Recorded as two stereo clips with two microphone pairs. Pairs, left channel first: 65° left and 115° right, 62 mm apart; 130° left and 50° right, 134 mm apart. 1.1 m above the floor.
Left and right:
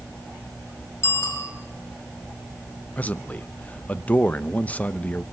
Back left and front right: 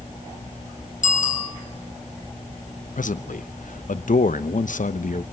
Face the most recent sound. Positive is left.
turn(degrees=130)